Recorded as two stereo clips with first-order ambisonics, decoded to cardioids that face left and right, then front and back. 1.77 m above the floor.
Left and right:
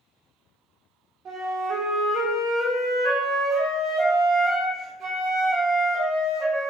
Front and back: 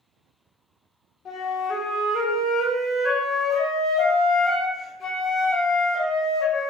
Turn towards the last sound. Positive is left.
turn(degrees=-40)